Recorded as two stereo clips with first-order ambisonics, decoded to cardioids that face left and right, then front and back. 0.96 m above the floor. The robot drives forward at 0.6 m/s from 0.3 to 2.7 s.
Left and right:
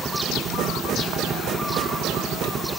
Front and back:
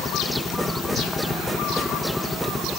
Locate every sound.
0.0 s a helicopter: 55° right; by 2.8 s 70° right